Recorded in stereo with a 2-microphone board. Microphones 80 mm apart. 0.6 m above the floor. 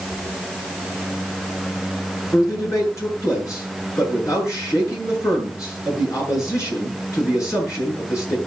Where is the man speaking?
40° left (ahead or behind), 8.5 m.